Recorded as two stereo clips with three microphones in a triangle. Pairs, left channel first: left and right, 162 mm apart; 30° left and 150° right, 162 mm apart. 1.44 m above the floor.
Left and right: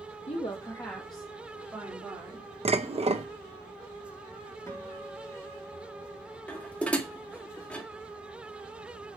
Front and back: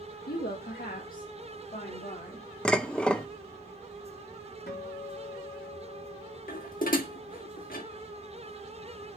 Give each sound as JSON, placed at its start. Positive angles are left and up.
{"t": 0.3, "sound": "a woman speaking", "azimuth_deg": 45, "distance_m": 1.4}
{"t": 2.6, "sound": "dishes clattering", "azimuth_deg": -50, "distance_m": 0.8}
{"t": 4.7, "sound": "a guitar", "azimuth_deg": 20, "distance_m": 4.0}
{"t": 6.5, "sound": "dishes clattering", "azimuth_deg": 10, "distance_m": 1.6}